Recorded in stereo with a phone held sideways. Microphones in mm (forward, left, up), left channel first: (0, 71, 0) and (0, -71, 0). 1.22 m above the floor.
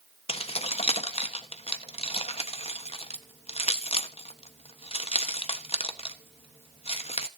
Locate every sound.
0.3 s keys jangling: 45° left (ahead or behind), 1.1 m